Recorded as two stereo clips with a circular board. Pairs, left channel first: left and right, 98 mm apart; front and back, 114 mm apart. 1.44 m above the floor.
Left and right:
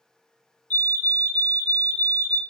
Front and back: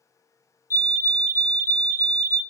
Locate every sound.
0.7 s a fire alarm: 145° left, 0.6 m